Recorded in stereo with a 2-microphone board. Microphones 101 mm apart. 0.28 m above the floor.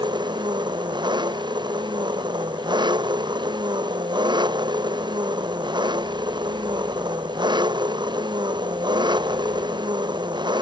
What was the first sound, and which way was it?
An engine running, 50° right (ahead or behind).